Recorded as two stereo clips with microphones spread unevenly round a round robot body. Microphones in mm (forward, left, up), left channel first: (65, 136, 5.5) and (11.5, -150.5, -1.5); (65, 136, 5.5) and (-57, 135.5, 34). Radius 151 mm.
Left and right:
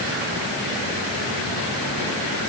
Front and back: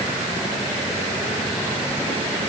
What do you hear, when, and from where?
Only background noise.